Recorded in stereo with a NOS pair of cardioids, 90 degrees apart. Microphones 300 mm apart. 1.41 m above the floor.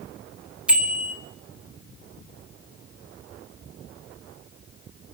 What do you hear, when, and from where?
0.7 s a bicycle bell: 5° right, 4 m